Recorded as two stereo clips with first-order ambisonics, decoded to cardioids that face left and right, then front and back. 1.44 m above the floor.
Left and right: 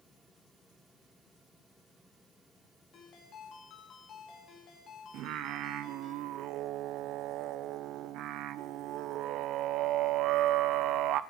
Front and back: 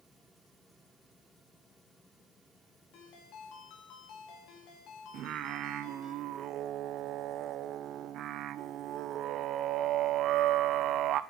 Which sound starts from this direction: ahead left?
A ringtone, at 2.9 s.